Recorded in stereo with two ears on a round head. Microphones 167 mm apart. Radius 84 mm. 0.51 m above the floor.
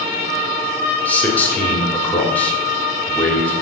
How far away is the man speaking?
About 1.4 m.